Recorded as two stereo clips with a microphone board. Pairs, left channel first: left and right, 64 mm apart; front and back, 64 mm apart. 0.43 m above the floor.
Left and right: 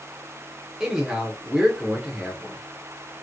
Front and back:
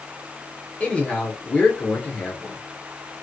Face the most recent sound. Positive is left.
turn(degrees=-25)